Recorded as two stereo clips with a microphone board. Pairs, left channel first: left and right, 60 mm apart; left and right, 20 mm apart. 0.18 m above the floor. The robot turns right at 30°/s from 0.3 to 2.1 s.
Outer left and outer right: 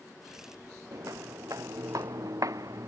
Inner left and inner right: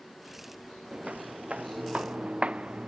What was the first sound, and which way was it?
Footsteps, 75° right (ahead or behind).